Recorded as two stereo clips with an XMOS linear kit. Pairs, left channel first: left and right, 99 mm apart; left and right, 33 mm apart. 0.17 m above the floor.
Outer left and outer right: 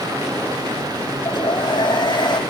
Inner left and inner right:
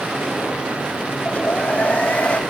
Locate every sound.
1.2 s a hair dryer: 50° left (ahead or behind), 4.5 m